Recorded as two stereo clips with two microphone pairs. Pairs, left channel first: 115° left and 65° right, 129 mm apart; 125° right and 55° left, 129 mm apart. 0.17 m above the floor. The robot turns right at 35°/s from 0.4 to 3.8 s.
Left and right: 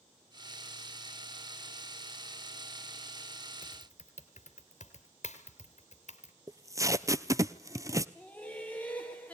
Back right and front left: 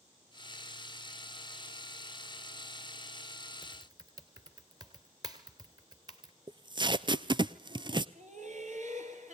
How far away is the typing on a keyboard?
About 2.5 m.